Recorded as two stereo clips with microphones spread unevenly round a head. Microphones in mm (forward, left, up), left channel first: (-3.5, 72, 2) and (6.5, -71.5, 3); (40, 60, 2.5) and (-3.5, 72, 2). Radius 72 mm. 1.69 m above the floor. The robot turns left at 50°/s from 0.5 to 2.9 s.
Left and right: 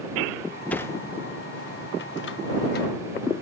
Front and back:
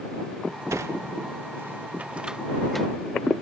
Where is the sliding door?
175° left; by 2.9 s 65° left.